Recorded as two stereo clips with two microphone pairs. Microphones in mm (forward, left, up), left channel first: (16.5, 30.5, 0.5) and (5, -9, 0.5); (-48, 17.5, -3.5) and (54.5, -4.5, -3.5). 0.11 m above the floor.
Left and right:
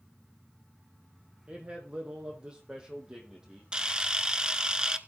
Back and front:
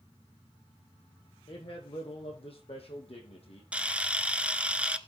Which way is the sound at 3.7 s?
70° right.